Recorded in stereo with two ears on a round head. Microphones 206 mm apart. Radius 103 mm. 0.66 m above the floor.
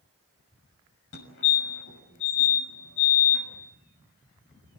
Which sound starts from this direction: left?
A fire alarm, at 1.1 s.